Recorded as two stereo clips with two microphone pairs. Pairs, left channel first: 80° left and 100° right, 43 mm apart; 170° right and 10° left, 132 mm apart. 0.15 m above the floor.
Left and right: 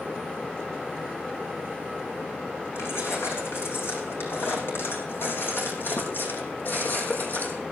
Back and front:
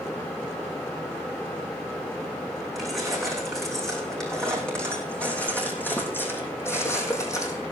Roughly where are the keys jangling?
Left.